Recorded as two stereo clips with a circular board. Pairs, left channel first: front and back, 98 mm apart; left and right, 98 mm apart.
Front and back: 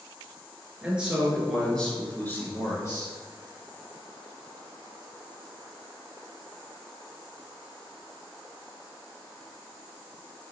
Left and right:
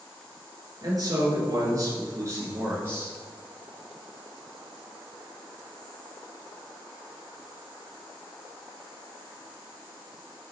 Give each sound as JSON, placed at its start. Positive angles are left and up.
{"t": 0.8, "sound": "a man speaking", "azimuth_deg": -110, "distance_m": 1.5}